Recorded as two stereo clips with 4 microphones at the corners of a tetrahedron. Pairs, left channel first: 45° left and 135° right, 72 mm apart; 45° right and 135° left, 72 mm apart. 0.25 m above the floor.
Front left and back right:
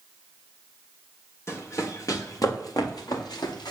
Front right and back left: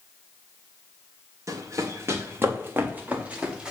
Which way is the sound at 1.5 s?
95° left.